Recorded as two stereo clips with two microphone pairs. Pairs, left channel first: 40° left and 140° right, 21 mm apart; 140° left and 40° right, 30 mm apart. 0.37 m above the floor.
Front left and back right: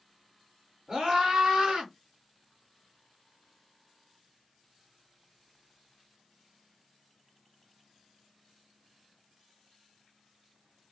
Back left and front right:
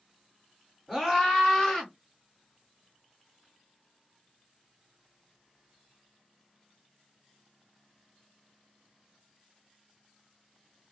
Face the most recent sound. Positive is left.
turn(degrees=-150)